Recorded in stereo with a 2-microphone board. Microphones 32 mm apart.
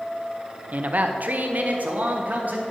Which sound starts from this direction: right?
A man speaking, at 0.7 s.